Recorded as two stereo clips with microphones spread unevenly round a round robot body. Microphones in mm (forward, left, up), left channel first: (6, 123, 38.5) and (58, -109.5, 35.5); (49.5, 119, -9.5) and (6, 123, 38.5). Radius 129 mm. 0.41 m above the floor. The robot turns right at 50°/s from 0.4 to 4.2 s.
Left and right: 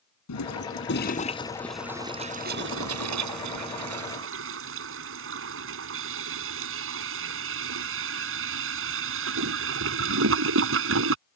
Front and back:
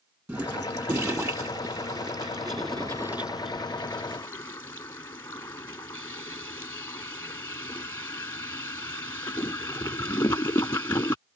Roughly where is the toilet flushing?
Behind left.